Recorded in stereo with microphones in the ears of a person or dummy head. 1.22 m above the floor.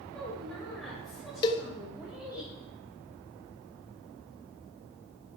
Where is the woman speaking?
5° left (ahead or behind), 6.5 m; by 2.4 s 10° right (ahead or behind), 5 m.